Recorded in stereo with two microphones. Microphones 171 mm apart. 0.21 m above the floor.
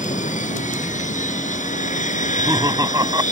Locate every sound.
0.0 s an aircraft: 50° left (ahead or behind)
2.2 s laughter: 20° right (ahead or behind)